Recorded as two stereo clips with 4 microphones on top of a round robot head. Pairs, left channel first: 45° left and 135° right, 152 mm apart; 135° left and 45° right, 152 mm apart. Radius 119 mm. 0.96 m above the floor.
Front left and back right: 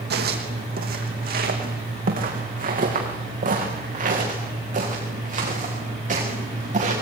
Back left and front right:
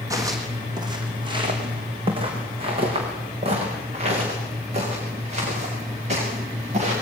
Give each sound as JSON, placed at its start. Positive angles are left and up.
{"t": 0.1, "sound": "footsteps", "azimuth_deg": -115, "distance_m": 3.0}